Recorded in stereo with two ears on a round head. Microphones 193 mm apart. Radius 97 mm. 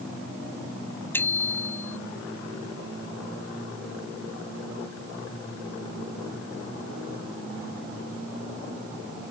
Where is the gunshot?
I don't hear a gunshot.